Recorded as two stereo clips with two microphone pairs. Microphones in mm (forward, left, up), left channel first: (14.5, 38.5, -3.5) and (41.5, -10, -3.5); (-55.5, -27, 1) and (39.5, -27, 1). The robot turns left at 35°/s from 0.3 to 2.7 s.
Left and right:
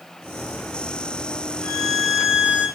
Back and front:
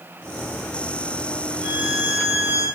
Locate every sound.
1.6 s a violin: 35° left, 3.5 m; by 2.7 s 5° right, 3.5 m